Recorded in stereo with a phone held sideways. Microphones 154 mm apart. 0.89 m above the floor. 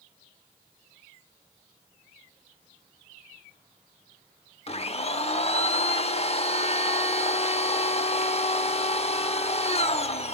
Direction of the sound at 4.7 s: 40° left (ahead or behind).